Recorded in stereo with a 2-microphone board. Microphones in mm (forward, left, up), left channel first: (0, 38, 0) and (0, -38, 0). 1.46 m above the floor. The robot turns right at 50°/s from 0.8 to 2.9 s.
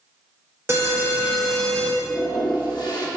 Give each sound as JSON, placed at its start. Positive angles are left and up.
{"t": 0.7, "sound": "an alarm", "azimuth_deg": -35, "distance_m": 1.6}
{"t": 2.0, "sound": "a toilet flushing", "azimuth_deg": 70, "distance_m": 1.3}